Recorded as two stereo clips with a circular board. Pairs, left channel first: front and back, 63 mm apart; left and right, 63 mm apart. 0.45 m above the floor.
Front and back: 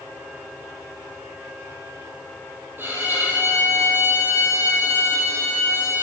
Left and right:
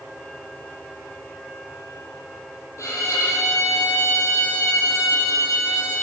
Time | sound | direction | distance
2.8 | a violin | 125° left | 3 m